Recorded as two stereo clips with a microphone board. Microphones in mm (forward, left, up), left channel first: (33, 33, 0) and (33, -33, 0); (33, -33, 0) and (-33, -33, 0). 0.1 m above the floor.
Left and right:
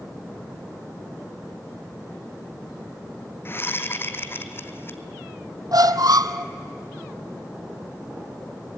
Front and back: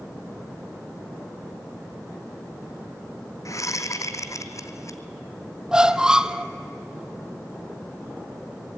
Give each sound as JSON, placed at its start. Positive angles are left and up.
{"t": 3.5, "sound": "a whoosh", "azimuth_deg": 35, "distance_m": 1.0}
{"t": 5.7, "sound": "a squeak", "azimuth_deg": -100, "distance_m": 0.7}